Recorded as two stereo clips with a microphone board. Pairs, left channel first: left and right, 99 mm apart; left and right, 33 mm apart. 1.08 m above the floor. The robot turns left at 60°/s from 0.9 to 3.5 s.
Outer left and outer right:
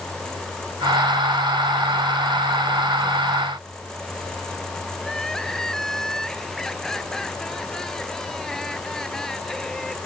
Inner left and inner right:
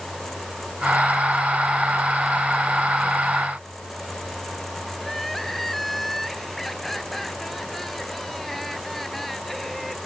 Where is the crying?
5° left (ahead or behind).